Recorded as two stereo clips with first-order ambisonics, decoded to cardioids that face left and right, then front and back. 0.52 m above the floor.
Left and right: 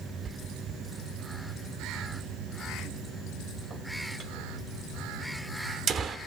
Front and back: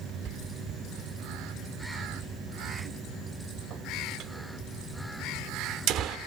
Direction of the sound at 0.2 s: 145° right.